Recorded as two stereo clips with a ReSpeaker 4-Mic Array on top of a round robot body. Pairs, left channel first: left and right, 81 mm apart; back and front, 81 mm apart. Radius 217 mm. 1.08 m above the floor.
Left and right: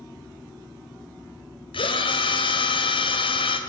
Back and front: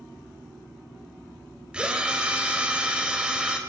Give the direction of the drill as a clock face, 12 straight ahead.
9 o'clock.